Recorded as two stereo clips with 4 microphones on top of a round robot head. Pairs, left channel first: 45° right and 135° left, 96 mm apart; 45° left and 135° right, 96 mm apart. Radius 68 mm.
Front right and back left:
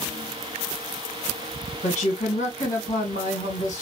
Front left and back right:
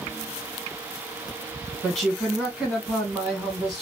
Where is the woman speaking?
40° right, 2 m.